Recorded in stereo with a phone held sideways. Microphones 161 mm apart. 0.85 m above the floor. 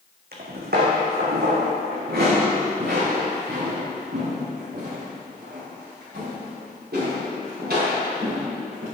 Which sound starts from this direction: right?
Footsteps, at 0.3 s.